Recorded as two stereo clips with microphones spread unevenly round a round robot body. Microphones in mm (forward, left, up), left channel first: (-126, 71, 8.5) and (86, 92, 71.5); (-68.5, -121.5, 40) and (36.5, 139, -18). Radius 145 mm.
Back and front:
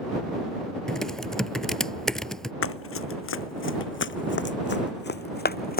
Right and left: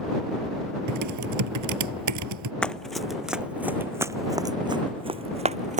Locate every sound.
0.9 s typing on a keyboard: 95° left
2.6 s running footsteps: 165° left; by 5.8 s 135° left